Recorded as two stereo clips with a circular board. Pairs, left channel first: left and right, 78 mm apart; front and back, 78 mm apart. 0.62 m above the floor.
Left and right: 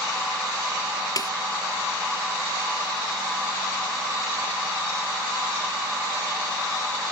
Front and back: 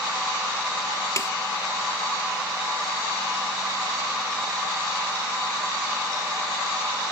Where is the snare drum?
50° left.